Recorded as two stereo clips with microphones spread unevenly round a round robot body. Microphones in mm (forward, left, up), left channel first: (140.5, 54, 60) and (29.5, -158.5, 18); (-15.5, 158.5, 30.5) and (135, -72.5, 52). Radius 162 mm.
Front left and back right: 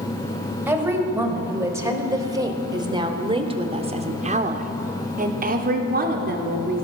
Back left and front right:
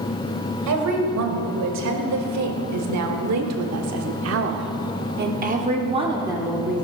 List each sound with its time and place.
0.7 s a woman speaking: 40° right, 3 m; by 6.8 s 145° right, 1.6 m